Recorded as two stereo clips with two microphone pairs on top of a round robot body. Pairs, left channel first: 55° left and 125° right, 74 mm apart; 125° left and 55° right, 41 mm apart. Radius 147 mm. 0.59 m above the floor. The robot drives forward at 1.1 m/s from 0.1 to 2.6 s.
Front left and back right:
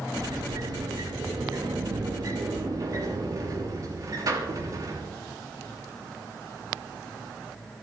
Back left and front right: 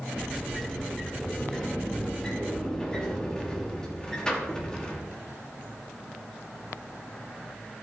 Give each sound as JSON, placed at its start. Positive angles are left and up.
{"t": 0.1, "sound": "a sliding door", "azimuth_deg": -145, "distance_m": 3.5}